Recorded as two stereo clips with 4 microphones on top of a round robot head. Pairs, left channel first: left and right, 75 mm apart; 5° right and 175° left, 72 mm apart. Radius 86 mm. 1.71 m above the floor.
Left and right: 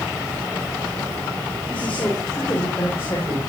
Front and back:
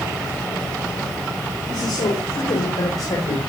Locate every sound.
1.7 s a man speaking: 10° left, 4 m; by 3.4 s 30° left, 5.5 m